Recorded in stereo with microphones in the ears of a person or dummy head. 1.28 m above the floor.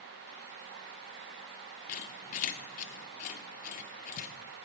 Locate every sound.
1.9 s a squeak: 45° left (ahead or behind), 0.6 m